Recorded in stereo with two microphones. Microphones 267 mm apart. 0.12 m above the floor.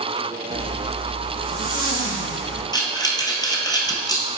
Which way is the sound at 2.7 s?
15° left (ahead or behind).